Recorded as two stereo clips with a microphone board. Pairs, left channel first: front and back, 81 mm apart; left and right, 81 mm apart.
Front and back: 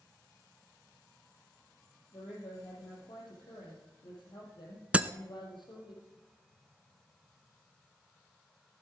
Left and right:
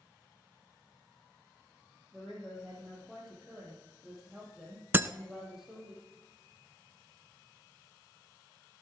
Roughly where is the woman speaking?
Ahead.